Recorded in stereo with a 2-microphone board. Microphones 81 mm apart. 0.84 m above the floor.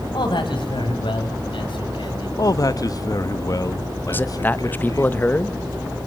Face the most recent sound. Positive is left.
turn(degrees=20)  # may be behind; listen again after turning